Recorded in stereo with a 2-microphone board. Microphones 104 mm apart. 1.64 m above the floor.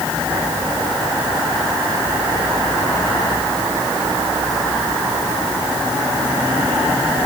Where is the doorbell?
No doorbell in this recording.